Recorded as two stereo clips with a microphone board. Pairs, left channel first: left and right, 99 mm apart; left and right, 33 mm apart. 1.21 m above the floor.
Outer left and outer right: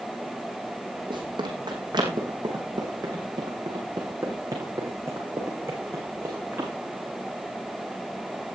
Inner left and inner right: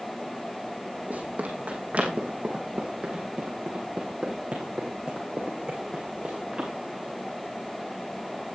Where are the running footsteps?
50° right (ahead or behind), 4 m; by 6.7 s 25° right (ahead or behind), 6 m.